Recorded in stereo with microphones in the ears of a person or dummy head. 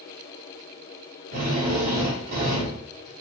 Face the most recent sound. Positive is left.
turn(degrees=-60)  # may be behind; listen again after turning